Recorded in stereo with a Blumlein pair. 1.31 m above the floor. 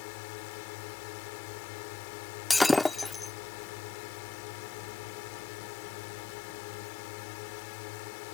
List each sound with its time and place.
0.0 s a drone: 45° left
2.5 s breaking glass: 10° left